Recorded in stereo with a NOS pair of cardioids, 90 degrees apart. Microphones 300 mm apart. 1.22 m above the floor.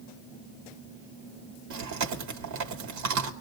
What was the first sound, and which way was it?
Chewing, 65° right.